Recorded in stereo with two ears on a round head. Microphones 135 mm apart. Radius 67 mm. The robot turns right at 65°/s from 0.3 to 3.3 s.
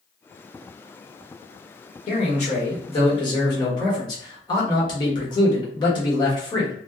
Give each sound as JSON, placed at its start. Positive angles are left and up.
{"t": 2.1, "sound": "a man speaking", "azimuth_deg": 60, "distance_m": 1.2}